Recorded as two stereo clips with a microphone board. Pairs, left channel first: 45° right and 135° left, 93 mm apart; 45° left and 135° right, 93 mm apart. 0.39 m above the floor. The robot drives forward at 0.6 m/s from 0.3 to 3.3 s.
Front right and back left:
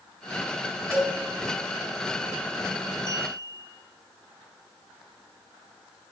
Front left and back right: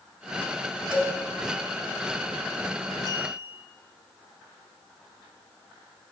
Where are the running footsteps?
No running footsteps in this recording.